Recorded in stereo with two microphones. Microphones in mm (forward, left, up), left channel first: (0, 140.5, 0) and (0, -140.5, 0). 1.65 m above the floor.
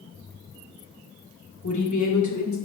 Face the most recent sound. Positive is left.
turn(degrees=75)  # may be behind; listen again after turning